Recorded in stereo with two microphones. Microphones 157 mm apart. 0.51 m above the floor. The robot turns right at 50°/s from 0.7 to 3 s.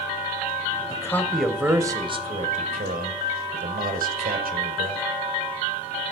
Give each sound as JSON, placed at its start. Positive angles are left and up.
{"t": 0.9, "sound": "a man speaking", "azimuth_deg": 155, "distance_m": 2.0}